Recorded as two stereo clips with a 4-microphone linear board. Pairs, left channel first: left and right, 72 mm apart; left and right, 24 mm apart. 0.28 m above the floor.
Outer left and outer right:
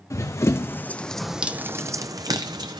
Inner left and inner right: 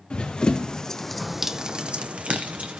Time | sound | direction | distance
0.1 | running footsteps | 50° left (ahead or behind) | 0.9 m